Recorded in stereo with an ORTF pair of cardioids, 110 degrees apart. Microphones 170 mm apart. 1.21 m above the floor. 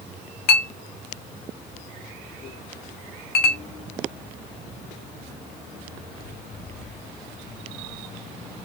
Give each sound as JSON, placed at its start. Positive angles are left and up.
{"t": 0.5, "sound": "a clink", "azimuth_deg": 65, "distance_m": 0.7}